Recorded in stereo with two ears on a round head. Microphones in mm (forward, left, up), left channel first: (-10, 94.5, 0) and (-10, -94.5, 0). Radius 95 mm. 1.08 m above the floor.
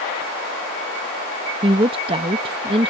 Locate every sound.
1.6 s a woman speaking: 25° right (ahead or behind)